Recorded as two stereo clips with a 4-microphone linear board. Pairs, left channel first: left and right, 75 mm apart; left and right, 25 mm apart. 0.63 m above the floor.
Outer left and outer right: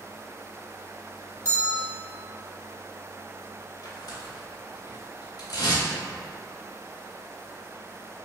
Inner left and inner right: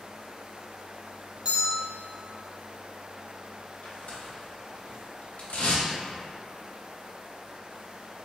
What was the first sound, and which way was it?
A bell, 40° right (ahead or behind).